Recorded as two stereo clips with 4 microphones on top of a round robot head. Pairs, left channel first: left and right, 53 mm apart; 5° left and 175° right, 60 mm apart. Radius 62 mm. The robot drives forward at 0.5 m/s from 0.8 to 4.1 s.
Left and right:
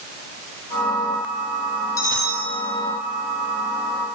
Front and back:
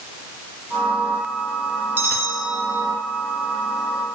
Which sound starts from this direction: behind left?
A bell, at 2.0 s.